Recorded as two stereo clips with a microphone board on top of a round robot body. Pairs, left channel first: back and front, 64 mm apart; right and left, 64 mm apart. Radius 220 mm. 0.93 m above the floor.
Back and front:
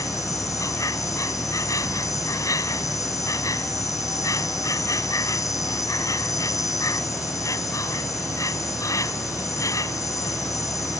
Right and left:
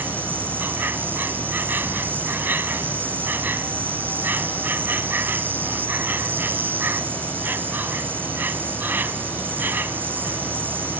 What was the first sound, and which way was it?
An insect, 150° left.